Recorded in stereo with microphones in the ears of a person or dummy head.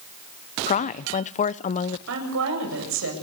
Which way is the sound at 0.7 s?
35° left (ahead or behind).